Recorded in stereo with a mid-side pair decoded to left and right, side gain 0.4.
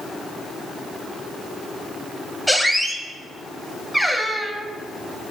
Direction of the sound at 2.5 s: Straight ahead.